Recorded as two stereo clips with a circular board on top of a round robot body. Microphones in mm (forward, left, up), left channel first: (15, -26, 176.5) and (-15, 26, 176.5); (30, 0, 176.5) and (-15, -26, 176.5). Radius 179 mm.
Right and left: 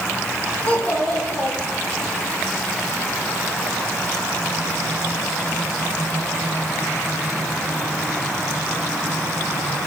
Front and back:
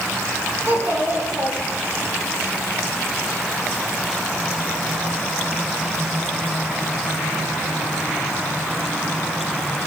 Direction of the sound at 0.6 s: 120° right.